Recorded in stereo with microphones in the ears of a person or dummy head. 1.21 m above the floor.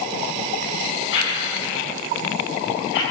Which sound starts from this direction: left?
A whoosh, at 1.1 s.